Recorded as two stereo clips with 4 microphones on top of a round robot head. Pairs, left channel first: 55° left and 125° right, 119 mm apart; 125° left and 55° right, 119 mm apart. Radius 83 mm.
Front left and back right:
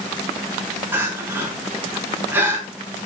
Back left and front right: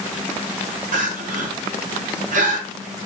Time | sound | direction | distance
0.9 | crying | 50° right | 4.5 m